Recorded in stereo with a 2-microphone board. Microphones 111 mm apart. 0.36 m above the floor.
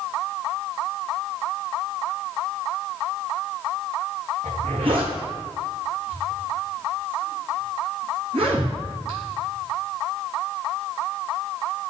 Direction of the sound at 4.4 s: 55° right (ahead or behind).